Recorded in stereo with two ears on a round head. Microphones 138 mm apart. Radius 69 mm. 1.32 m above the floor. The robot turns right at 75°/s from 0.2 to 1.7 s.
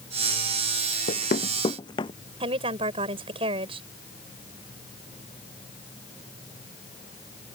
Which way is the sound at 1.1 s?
65° left (ahead or behind).